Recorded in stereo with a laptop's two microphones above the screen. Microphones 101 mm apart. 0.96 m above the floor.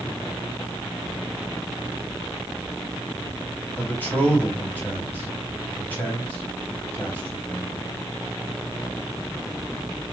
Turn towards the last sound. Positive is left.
turn(degrees=15)  # may be behind; listen again after turning